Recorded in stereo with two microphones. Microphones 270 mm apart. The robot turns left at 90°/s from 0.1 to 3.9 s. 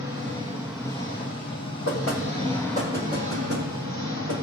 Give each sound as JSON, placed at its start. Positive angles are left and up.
{"t": 0.0, "sound": "an engine running", "azimuth_deg": -120, "distance_m": 3.0}
{"t": 1.9, "sound": "knocking", "side_deg": 70, "distance_m": 7.0}